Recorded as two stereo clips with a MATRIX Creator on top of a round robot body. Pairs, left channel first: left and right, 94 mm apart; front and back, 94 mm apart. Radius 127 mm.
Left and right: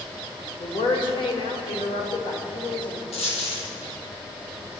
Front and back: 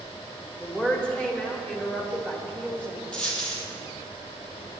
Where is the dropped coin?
80° left, 3.5 m.